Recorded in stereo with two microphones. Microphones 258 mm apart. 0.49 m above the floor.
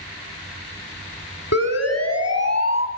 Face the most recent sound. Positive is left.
turn(degrees=80)